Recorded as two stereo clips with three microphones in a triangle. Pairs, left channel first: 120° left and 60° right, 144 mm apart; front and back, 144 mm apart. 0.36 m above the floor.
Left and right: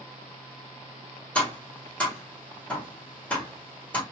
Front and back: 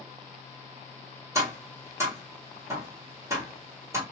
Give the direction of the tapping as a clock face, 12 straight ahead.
6 o'clock.